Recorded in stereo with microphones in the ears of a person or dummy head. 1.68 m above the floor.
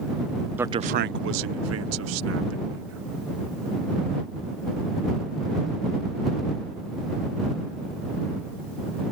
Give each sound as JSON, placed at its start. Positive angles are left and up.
{"t": 0.6, "sound": "a man speaking", "side_deg": -10}